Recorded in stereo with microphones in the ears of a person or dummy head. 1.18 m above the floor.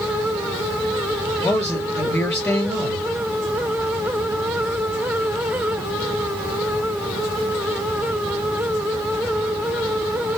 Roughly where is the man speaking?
Centre.